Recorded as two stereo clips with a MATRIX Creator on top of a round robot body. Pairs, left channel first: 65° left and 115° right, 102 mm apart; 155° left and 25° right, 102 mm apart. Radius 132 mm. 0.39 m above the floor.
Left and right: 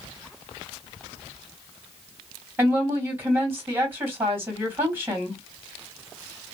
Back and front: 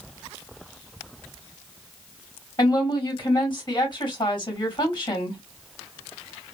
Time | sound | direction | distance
2.6 | a woman speaking | 175° right | 1.9 m